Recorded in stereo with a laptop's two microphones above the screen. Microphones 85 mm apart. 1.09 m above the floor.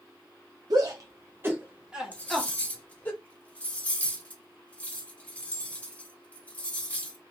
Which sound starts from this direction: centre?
Cutlery clinking, at 2.1 s.